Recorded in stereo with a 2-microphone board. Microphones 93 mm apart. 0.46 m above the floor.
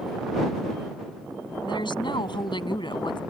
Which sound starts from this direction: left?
A woman speaking, at 1.6 s.